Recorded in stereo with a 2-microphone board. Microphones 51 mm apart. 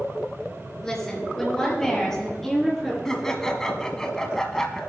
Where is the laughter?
10° left (ahead or behind), 1.5 m.